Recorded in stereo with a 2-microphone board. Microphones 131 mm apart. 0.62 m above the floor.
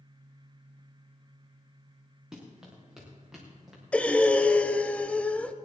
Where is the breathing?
10° left (ahead or behind), 0.7 m.